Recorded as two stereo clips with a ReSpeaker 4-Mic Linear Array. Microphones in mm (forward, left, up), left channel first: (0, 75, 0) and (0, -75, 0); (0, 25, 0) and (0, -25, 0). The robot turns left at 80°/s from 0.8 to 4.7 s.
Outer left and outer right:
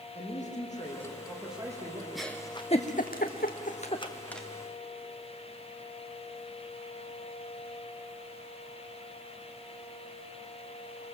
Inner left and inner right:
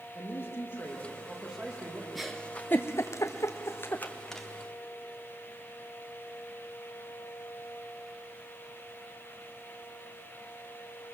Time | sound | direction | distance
0.1 | a man speaking | 55° left | 6 m
2.1 | a giggle | centre (ahead or behind) | 1.5 m